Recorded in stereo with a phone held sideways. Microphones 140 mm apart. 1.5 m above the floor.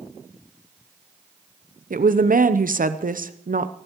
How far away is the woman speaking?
About 0.7 m.